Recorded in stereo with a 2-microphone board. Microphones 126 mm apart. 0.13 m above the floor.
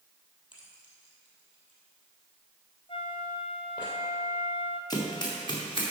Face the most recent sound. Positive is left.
turn(degrees=40)  # may be behind; listen again after turning